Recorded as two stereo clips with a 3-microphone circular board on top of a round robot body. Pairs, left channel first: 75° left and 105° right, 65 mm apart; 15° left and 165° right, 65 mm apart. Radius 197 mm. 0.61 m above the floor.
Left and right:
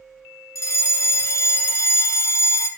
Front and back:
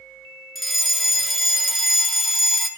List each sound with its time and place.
0.6 s a fire alarm: 105° left, 3 m